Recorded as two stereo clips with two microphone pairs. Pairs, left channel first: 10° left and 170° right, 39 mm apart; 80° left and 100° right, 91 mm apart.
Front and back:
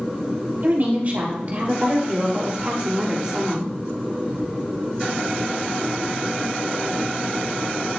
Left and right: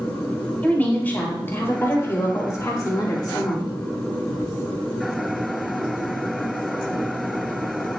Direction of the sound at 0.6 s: 150° left.